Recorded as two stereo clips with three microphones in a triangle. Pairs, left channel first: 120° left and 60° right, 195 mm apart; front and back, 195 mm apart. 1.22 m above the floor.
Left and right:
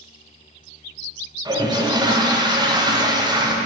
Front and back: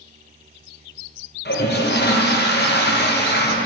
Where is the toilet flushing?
10° left, 0.8 m.